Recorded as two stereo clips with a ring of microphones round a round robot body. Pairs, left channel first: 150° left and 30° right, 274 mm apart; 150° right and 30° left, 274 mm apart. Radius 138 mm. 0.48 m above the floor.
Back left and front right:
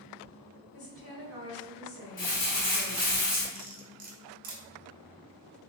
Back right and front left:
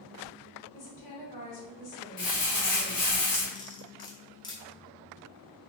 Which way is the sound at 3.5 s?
80° right.